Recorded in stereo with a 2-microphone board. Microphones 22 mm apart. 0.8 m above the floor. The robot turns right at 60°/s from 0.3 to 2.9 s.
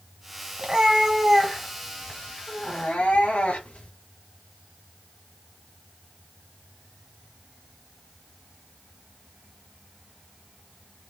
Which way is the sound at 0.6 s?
45° right.